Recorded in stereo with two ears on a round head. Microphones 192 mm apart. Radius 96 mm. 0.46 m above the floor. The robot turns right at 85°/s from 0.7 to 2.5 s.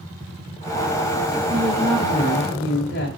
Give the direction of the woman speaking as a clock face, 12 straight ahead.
12 o'clock.